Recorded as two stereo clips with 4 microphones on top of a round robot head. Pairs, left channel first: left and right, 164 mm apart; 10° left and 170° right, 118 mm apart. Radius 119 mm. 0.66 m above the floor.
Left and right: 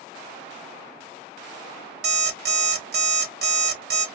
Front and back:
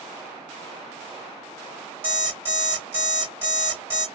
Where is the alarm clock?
100° right, 1.3 m.